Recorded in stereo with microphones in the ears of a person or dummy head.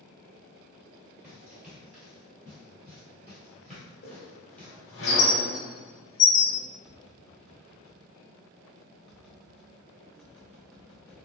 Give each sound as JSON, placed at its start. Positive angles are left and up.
{"t": 1.2, "sound": "running footsteps", "side_deg": -5, "distance_m": 1.6}
{"t": 4.0, "sound": "a squeak", "side_deg": 60, "distance_m": 1.8}
{"t": 6.8, "sound": "tapping", "side_deg": 0, "distance_m": 0.9}